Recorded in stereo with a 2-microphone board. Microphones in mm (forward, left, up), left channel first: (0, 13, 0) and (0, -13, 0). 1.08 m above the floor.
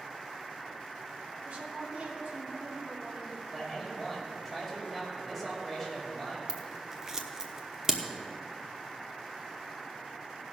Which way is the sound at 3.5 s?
5° right (ahead or behind).